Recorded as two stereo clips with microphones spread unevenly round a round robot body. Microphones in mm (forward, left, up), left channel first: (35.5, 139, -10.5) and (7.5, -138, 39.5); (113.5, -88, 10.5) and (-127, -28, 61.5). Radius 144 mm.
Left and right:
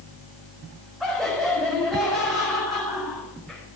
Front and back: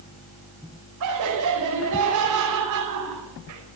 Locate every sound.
1.0 s laughter: 170° left, 5 m